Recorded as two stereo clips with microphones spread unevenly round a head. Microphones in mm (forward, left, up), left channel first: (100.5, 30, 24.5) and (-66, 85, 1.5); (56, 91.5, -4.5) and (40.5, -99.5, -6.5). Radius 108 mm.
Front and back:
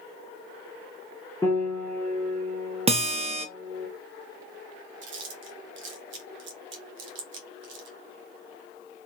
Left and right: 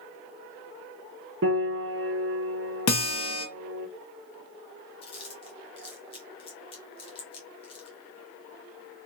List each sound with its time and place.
1.4 s a piano: 95° right, 0.8 m
2.9 s a guitar: 105° left, 0.6 m
5.0 s chewing: 150° left, 0.9 m